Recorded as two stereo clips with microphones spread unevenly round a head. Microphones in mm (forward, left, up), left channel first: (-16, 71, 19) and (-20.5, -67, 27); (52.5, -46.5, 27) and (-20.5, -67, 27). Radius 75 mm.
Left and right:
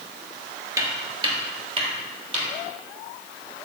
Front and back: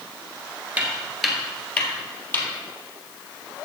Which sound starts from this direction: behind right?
Footsteps, at 0.8 s.